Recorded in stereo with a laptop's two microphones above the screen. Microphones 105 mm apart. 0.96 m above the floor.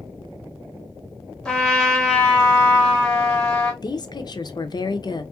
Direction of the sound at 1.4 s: 5° left (ahead or behind).